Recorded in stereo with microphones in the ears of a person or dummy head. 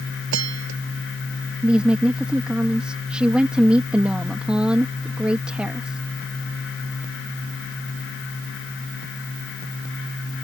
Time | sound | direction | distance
0.3 | a bell | 75° right (ahead or behind) | ?
1.6 | a woman speaking | 5° right (ahead or behind) | ?